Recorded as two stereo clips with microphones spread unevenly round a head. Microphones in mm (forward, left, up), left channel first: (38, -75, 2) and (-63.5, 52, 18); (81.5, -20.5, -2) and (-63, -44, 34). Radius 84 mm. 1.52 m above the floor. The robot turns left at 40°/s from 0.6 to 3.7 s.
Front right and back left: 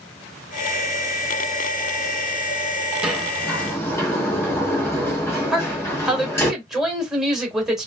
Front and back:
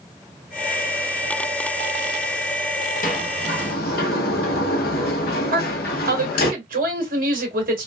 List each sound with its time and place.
3.0 s a sliding door: 50° left, 0.9 m; by 6.5 s 25° left, 0.9 m
5.5 s a woman speaking: 145° right, 2 m